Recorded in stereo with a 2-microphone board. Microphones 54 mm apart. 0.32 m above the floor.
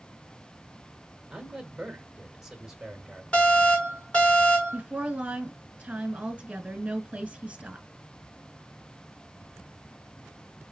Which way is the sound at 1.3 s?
10° right (ahead or behind).